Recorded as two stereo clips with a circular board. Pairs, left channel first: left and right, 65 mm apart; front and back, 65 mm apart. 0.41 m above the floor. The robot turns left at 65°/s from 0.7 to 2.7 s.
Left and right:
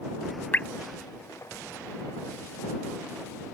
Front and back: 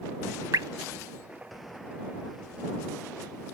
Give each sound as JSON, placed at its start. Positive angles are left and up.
{"t": 0.5, "sound": "dripping", "azimuth_deg": 150}